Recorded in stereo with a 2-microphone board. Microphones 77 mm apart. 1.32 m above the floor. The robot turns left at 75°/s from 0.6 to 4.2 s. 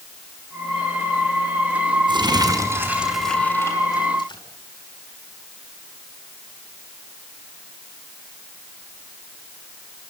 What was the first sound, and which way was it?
Crumpling, 100° right.